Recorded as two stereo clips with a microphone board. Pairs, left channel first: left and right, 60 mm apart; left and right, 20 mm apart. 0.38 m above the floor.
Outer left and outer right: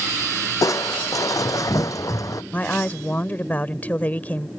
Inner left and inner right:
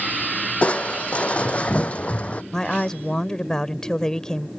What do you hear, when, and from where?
0.6 s crushing: 75° left (ahead or behind)
2.5 s a woman speaking: 30° left (ahead or behind)